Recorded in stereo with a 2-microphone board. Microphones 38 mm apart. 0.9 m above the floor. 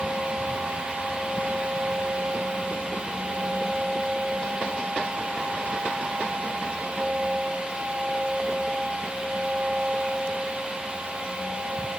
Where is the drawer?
I don't hear a drawer.